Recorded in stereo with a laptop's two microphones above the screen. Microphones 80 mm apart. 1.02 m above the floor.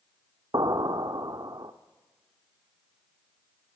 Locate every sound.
0.5 s an explosion: 60° right (ahead or behind), 0.9 m